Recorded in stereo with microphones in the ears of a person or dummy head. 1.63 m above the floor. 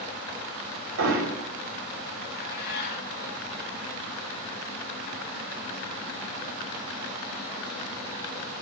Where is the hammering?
80° right, 4.5 m.